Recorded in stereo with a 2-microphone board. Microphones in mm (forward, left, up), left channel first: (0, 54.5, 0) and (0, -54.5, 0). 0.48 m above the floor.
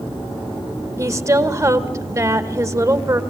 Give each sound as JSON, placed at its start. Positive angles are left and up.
{"t": 1.0, "sound": "a woman speaking", "side_deg": -30, "distance_m": 1.3}